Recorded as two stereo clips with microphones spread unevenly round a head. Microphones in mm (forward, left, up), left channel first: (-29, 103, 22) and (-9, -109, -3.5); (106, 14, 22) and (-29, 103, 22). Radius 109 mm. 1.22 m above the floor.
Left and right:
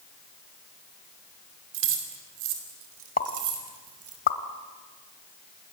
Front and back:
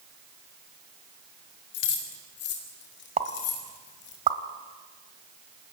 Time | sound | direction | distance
1.7 | keys jangling | 55° right | 3.5 m
3.2 | a pop | 120° left | 1.4 m